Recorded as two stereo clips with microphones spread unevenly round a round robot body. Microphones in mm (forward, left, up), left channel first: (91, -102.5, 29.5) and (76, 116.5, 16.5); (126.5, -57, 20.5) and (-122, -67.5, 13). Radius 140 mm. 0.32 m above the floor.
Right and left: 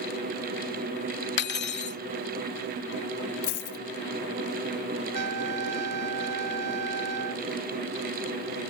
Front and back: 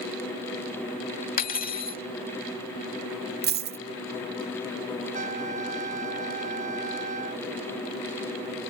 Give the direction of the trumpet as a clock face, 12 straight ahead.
8 o'clock.